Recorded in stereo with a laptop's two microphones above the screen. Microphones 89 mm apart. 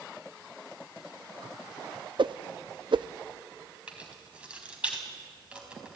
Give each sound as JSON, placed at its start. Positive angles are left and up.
{"t": 2.2, "sound": "a whoosh", "side_deg": -65, "distance_m": 0.5}
{"t": 3.9, "sound": "keys jangling", "side_deg": -10, "distance_m": 4.5}